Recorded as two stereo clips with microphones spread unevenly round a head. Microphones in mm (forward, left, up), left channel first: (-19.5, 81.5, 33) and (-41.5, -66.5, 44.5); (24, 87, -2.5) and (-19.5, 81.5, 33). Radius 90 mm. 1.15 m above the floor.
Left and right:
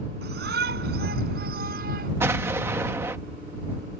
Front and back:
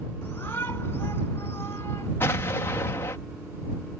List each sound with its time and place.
0.2 s a shout: 65° right; by 2.1 s 60° right
2.2 s an explosion: 20° right